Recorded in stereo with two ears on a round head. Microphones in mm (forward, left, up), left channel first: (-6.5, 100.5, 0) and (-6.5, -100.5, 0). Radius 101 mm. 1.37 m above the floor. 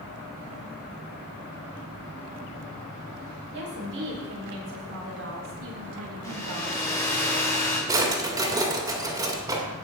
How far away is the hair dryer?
About 3 m.